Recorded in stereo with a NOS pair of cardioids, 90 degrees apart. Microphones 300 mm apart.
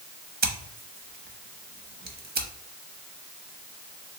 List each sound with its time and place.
0.4 s scissors: 30° right, 0.8 m